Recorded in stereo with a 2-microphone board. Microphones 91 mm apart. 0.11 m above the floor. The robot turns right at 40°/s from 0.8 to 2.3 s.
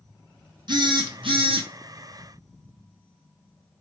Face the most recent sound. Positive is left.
turn(degrees=-60)